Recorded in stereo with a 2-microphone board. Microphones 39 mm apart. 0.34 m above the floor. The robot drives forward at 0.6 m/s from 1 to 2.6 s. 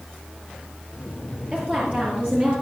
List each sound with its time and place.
1.5 s a woman speaking: 35° right (ahead or behind), 7.5 m; by 2.5 s 30° right (ahead or behind), 8 m